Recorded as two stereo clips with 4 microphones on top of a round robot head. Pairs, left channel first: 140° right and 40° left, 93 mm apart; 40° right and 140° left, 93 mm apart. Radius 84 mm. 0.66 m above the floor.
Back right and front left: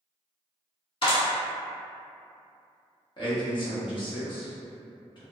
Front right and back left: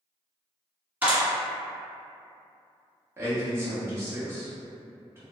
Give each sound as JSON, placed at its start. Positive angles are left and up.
{"t": 1.0, "sound": "a clap", "azimuth_deg": -155, "distance_m": 1.9}
{"t": 3.2, "sound": "a man speaking", "azimuth_deg": -160, "distance_m": 1.3}